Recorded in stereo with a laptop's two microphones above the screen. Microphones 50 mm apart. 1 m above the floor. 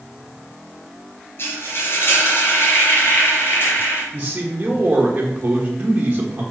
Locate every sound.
1.4 s frying: 55° left (ahead or behind), 3 m
4.1 s a man speaking: 35° right (ahead or behind), 1.3 m